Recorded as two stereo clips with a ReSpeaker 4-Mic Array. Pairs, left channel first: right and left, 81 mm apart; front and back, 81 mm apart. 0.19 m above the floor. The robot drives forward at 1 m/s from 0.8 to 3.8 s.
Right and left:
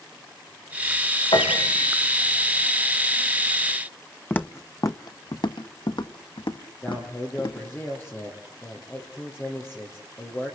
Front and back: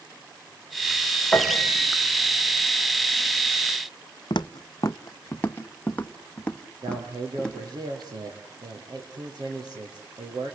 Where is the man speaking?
150° right, 5.5 m.